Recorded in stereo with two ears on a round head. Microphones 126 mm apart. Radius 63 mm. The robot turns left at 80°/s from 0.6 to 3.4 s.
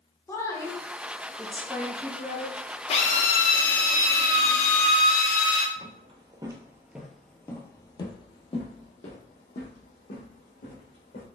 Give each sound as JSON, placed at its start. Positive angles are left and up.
{"t": 0.3, "sound": "a woman speaking", "side_deg": 20, "distance_m": 0.8}
{"t": 2.9, "sound": "a drill", "azimuth_deg": 130, "distance_m": 0.8}
{"t": 5.8, "sound": "footsteps", "side_deg": -45, "distance_m": 1.0}